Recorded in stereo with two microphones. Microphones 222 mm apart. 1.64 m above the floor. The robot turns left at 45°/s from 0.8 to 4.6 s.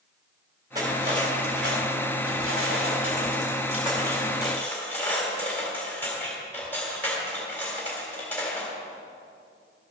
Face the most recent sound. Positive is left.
turn(degrees=170)